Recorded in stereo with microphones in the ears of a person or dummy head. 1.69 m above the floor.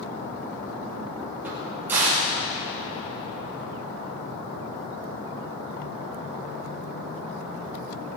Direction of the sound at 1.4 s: 20° right (ahead or behind).